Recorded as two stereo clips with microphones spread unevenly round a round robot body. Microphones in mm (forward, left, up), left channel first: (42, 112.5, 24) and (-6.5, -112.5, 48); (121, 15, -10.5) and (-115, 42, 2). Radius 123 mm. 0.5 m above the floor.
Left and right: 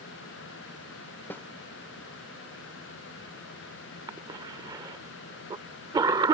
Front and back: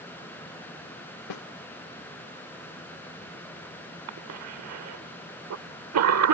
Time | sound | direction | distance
1.3 | a snare drum | 5° right | ?
4.1 | a cough | 175° right | ?